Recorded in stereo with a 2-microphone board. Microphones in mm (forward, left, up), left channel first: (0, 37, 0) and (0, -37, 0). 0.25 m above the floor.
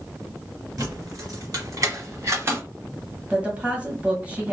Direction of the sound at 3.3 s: 20° right (ahead or behind).